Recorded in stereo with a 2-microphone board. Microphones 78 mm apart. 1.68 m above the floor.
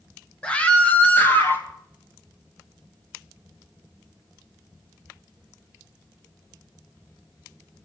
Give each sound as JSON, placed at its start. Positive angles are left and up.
{"t": 0.4, "sound": "a scream", "side_deg": 15, "distance_m": 1.8}